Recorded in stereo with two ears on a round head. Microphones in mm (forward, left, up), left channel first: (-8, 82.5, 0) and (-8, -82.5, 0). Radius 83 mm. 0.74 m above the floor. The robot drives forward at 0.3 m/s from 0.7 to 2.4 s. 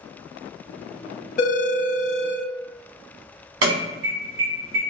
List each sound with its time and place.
1.4 s a phone ringing: 45° left (ahead or behind), 0.9 m; by 2.4 s 35° left (ahead or behind), 1.1 m
3.6 s an alarm: 80° right, 1.8 m